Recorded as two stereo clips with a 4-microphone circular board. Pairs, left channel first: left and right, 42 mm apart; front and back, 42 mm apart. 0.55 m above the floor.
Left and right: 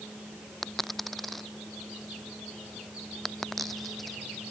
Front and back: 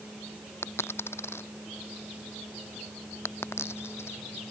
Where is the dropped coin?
Straight ahead.